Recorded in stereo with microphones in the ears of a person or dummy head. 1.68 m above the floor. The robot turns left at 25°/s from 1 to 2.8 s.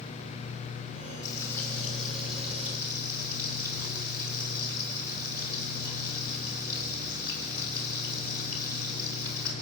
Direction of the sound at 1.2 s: 20° left.